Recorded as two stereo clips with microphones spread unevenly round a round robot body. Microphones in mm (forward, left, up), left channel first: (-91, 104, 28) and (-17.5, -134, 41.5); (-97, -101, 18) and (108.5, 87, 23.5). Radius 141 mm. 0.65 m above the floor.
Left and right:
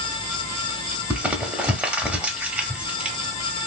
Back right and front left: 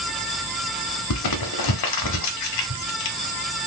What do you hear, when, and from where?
1.1 s crumpling: 155° right, 0.6 m